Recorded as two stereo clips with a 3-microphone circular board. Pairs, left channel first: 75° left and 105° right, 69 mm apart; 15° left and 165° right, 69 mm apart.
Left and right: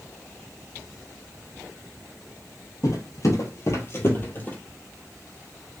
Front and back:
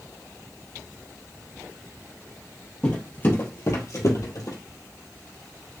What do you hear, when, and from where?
2.8 s footsteps: 80° left, 1.8 m; by 4.6 s 15° left, 1.6 m